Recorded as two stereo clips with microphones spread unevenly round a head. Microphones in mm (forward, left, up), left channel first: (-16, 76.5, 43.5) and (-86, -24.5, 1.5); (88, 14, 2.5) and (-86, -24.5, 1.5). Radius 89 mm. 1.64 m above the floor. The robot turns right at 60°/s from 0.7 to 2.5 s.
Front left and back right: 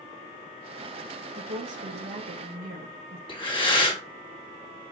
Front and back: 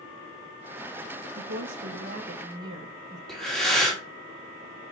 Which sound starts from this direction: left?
Breathing, at 3.3 s.